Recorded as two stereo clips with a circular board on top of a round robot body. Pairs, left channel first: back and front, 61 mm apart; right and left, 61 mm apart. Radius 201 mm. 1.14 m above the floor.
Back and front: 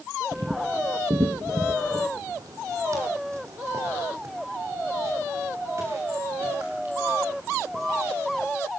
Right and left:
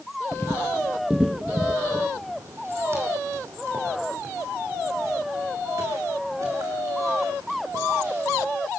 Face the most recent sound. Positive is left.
turn(degrees=50)